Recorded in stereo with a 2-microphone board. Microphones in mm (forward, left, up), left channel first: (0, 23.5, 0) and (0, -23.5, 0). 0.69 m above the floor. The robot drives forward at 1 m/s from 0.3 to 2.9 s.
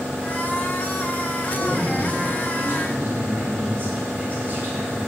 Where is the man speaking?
55° right (ahead or behind), 4 m; by 5.0 s 40° right (ahead or behind), 4.5 m.